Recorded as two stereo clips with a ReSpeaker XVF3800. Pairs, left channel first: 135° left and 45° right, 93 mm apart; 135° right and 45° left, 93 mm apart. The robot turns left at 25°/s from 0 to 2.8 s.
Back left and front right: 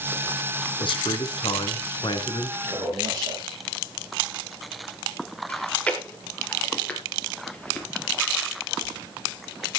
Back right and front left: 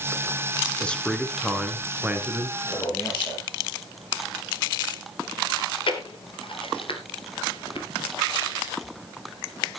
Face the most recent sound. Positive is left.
turn(degrees=-150)